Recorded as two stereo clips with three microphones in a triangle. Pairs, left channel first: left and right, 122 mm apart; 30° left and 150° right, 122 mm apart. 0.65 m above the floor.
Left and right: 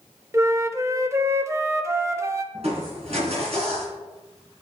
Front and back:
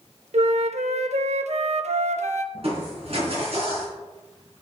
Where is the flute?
155° right, 0.5 m.